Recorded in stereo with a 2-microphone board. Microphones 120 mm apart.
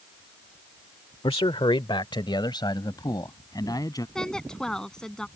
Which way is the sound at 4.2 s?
5° left (ahead or behind).